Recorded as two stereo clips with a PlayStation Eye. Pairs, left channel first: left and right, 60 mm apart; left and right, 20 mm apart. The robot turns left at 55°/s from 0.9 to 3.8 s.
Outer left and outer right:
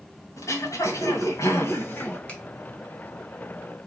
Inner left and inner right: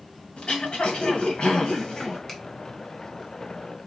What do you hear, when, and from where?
0.4 s throat clearing: 105° left, 1.9 m; by 2.2 s 35° left, 1.9 m
2.3 s a finger snap: 25° left (ahead or behind), 1.3 m; by 2.4 s 20° left (ahead or behind), 1.3 m